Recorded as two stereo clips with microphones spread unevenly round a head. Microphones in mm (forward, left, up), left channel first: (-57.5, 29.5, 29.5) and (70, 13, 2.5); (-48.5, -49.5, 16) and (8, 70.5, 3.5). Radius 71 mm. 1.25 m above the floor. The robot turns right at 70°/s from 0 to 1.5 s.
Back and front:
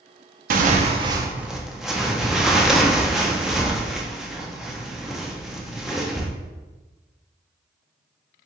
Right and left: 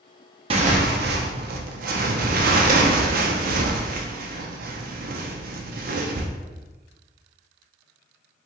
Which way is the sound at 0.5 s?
10° left.